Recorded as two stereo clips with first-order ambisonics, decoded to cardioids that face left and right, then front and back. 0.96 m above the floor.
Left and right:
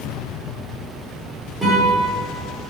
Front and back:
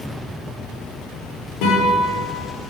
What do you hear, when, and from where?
1.6 s a guitar: 10° right, 3.5 m